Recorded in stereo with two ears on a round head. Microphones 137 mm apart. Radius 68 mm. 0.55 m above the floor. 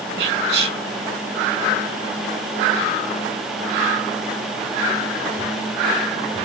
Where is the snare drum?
I don't hear a snare drum.